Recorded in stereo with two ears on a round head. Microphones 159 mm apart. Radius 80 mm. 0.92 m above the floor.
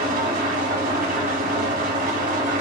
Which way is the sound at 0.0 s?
50° right (ahead or behind).